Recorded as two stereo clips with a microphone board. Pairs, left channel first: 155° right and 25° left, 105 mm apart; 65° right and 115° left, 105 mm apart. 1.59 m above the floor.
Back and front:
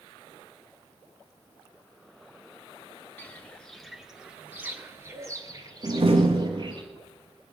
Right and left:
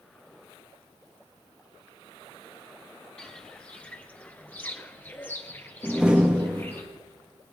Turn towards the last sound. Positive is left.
turn(degrees=35)